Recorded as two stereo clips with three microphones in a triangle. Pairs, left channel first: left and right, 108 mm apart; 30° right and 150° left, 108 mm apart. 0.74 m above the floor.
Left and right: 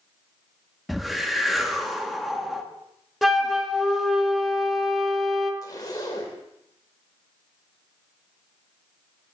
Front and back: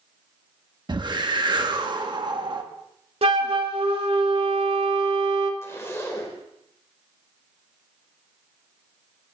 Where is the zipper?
35° left, 1.8 m.